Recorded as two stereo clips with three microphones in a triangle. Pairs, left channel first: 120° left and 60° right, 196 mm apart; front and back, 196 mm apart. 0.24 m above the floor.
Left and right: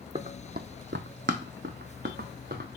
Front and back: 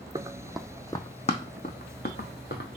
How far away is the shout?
No shout in this recording.